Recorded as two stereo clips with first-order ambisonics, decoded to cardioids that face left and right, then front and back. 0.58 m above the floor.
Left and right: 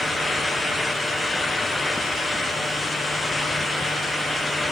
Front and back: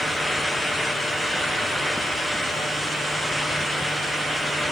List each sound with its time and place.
Only background noise.